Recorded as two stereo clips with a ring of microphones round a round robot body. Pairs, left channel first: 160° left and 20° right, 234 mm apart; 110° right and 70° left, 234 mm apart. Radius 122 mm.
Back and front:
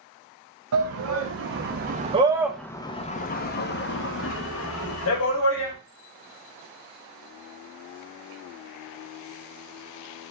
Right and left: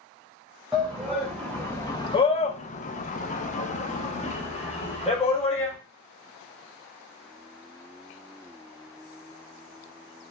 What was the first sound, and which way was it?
A shout, 20° right.